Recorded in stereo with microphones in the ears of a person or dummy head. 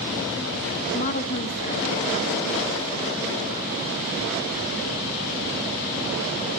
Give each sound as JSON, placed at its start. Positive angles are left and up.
{"t": 0.9, "sound": "a woman speaking", "side_deg": 45, "distance_m": 0.6}